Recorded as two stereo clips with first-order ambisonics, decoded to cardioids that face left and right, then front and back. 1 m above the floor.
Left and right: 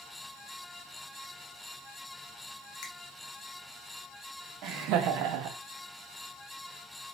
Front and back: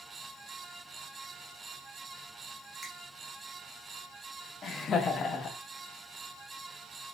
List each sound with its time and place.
2.8 s a finger snap: 85° left, 1.3 m
4.6 s laughter: 65° right, 0.6 m